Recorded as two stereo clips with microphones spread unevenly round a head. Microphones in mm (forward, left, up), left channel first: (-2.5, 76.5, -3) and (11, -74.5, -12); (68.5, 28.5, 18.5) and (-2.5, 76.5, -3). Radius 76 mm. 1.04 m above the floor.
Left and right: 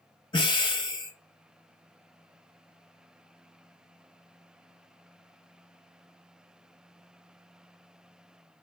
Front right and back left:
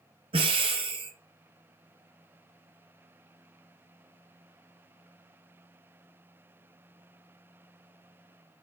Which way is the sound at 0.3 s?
155° left.